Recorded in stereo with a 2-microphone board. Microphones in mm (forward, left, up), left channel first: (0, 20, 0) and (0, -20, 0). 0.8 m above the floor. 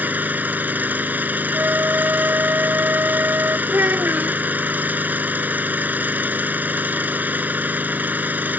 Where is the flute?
70° right (ahead or behind).